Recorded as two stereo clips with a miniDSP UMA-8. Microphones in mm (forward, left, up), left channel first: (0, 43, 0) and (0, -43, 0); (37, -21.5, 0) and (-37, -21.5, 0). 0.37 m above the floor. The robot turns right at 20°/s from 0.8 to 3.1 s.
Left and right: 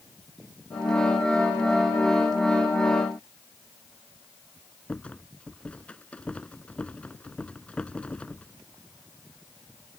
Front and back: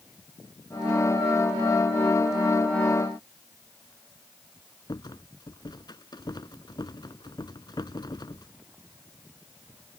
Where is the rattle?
15° left.